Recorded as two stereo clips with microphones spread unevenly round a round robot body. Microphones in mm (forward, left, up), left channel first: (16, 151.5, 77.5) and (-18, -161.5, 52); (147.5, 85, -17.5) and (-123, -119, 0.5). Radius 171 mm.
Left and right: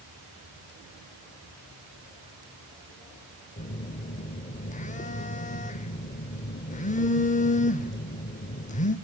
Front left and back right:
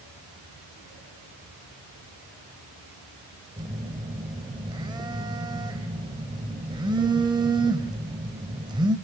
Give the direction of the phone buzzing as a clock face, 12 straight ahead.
7 o'clock.